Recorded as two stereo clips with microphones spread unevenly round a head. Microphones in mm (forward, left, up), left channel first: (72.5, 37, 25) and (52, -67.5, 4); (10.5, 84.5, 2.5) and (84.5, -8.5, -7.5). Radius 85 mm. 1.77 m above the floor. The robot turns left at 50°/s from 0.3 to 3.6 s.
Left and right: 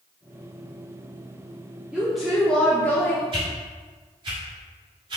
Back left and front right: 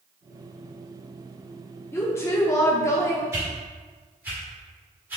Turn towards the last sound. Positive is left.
turn(degrees=-125)